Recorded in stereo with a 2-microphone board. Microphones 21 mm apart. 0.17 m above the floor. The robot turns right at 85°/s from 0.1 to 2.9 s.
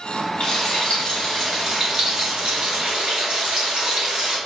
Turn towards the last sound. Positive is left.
turn(degrees=-65)